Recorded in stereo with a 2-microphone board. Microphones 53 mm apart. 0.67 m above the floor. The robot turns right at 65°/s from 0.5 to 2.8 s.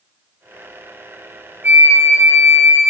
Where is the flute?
140° right, 2 m; by 2.9 s 65° right, 2 m.